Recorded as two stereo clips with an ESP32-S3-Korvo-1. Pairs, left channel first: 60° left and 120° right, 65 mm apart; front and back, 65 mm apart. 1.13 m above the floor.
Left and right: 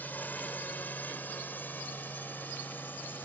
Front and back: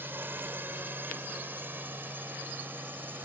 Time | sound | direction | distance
0.0 | a drone | 125° left | ?